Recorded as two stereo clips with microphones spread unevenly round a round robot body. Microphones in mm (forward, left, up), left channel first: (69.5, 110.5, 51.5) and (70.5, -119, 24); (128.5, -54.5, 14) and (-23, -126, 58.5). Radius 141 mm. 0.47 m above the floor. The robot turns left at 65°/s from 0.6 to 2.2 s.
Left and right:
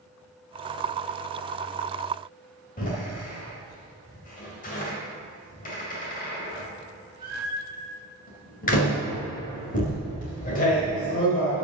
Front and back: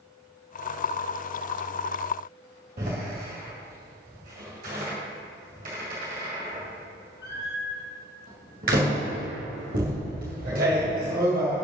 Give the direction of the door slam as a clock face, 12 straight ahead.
7 o'clock.